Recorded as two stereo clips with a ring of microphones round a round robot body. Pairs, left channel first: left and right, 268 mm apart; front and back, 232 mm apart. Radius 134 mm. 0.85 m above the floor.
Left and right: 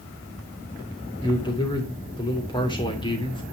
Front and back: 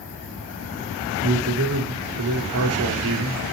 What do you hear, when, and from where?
1.2 s a man speaking: 165° left, 3 m